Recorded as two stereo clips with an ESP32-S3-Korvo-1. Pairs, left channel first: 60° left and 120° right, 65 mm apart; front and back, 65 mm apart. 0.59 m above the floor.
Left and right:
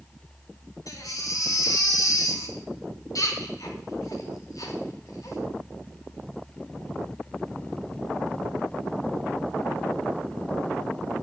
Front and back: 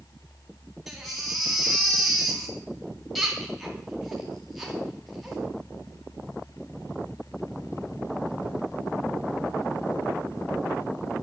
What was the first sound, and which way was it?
A baby crying, 85° left.